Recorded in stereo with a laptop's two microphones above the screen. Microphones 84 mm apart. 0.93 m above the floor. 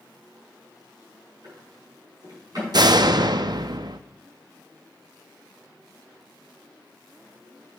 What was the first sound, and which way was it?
A drawer, 50° right (ahead or behind).